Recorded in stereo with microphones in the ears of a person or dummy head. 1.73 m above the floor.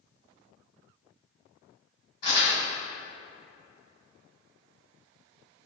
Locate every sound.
2.2 s crumpling: 55° left (ahead or behind), 1.9 m